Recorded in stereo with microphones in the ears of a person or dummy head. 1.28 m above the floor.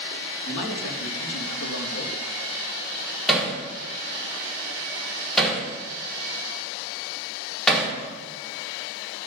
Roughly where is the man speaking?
Left.